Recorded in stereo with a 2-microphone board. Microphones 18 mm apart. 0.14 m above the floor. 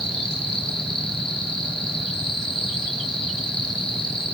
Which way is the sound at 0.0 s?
55° left (ahead or behind).